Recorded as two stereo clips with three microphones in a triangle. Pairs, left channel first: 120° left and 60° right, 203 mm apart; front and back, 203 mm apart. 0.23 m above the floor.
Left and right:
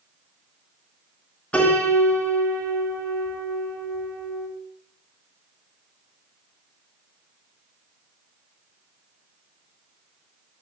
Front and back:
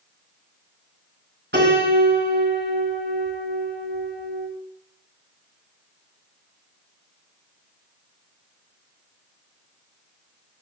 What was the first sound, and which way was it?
A piano, 155° right.